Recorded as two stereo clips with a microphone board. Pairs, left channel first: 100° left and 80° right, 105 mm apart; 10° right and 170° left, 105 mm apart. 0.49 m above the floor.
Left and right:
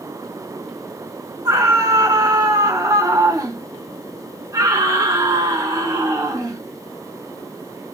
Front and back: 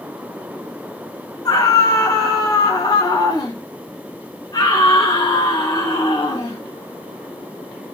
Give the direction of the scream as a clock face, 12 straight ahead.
2 o'clock.